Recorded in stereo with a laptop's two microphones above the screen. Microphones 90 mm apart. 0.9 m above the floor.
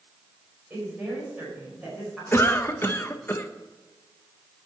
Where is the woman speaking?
20° right (ahead or behind), 5 m; by 2.2 s 5° right (ahead or behind), 5 m.